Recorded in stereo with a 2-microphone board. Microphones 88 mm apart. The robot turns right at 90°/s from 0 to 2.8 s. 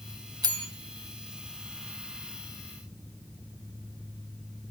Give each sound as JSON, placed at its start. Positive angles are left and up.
{"t": 0.4, "sound": "a bell", "side_deg": -50, "distance_m": 1.1}